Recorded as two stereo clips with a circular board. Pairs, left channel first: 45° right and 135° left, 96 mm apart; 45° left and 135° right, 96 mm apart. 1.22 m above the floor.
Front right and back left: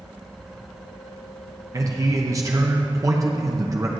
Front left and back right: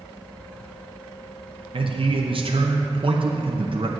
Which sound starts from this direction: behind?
A man speaking, at 1.7 s.